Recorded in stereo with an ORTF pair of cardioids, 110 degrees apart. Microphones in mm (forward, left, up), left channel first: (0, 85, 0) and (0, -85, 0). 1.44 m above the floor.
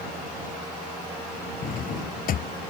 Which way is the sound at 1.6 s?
55° left.